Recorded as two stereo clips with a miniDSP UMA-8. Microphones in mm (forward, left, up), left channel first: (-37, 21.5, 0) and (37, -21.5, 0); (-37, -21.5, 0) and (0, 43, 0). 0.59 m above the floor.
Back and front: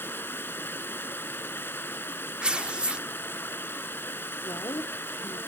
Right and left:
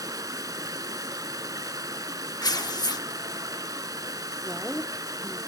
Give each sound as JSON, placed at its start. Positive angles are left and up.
{"t": 0.0, "sound": "running water", "azimuth_deg": 90, "distance_m": 0.9}
{"t": 2.4, "sound": "tearing paper", "azimuth_deg": -105, "distance_m": 0.7}
{"t": 4.5, "sound": "a woman speaking", "azimuth_deg": 130, "distance_m": 1.1}